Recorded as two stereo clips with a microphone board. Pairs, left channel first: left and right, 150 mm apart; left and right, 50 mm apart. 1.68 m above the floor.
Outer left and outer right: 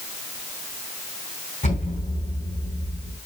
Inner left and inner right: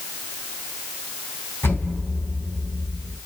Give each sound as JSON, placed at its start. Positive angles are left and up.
{"t": 1.6, "sound": "an explosion", "side_deg": 55, "distance_m": 2.5}